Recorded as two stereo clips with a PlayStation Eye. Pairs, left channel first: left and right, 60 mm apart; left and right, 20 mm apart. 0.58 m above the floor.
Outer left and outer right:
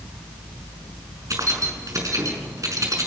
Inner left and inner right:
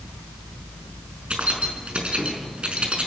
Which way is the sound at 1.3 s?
65° right (ahead or behind).